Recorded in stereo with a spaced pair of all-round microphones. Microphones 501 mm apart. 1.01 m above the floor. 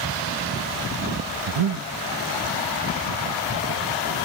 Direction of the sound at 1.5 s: 75° right (ahead or behind).